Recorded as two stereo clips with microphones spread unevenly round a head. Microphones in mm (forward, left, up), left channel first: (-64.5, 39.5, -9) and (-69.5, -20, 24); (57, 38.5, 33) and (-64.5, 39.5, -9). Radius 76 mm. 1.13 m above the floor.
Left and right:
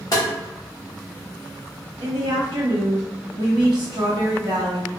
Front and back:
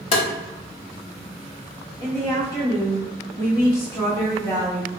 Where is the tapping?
5° left, 0.7 m.